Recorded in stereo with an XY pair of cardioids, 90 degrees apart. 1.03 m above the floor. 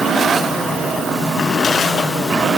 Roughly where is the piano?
No piano in this recording.